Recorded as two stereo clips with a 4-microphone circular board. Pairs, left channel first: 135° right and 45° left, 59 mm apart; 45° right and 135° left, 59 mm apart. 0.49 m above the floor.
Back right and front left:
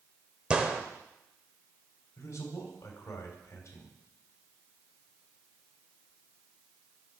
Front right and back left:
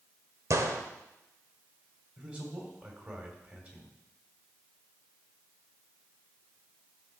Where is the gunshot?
115° left, 1.1 m.